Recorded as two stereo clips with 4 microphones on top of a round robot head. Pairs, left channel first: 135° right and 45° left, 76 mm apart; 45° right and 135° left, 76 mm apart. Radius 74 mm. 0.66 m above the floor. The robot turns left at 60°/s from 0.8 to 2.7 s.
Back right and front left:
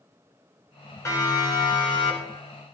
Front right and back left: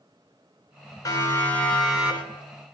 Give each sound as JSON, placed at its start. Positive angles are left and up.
{"t": 1.1, "sound": "a siren", "azimuth_deg": -85, "distance_m": 9.0}